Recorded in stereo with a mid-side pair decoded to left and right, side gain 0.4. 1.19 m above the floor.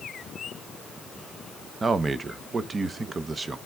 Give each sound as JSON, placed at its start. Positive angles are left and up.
{"t": 1.8, "sound": "a man speaking", "azimuth_deg": -35, "distance_m": 0.8}